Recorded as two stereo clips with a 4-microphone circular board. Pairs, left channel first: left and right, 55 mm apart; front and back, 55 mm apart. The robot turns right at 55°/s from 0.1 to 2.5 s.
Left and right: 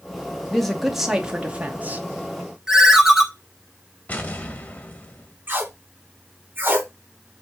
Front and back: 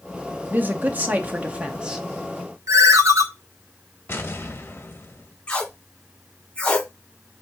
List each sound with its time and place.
0.5 s a man speaking: 165° left, 0.8 m; by 2.0 s 110° right, 0.8 m
2.7 s a ringtone: 170° right, 0.8 m
4.1 s an explosion: 35° left, 0.9 m
5.5 s tape being pulled: 60° right, 0.9 m